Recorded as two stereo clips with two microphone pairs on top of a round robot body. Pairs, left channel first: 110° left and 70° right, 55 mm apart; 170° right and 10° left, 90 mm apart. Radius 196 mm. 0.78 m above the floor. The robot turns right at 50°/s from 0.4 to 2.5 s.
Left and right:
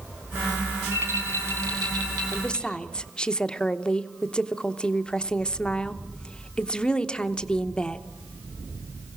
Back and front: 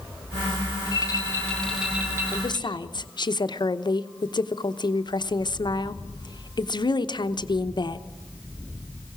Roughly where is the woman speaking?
Behind.